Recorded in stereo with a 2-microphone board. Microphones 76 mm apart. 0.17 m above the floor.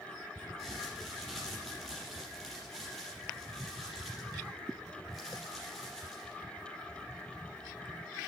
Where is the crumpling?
Centre (ahead or behind), 4.5 m.